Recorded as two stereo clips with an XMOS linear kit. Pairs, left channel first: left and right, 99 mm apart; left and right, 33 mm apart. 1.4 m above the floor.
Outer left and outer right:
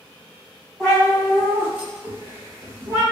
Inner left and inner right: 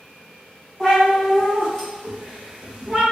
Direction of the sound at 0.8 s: 5° left (ahead or behind).